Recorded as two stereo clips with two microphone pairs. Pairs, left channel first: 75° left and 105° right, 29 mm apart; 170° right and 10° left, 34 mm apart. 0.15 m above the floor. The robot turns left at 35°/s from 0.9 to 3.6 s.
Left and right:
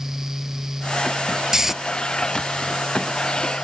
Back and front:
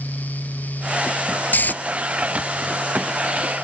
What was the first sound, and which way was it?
Snoring, 175° right.